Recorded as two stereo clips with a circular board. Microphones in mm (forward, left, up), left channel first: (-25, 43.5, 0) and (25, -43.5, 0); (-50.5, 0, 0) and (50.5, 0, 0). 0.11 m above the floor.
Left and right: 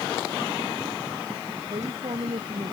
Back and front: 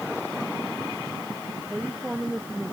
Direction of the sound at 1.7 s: 80° right.